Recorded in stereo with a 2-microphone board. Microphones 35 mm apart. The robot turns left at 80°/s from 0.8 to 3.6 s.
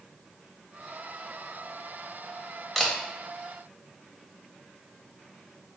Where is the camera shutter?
10° left (ahead or behind), 1.0 m; by 2.9 s 5° left (ahead or behind), 1.0 m.